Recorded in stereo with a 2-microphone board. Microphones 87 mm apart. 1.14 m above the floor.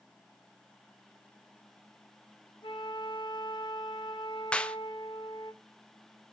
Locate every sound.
2.6 s a flute: 60° left (ahead or behind), 0.9 m
4.5 s a clap: 10° left (ahead or behind), 0.5 m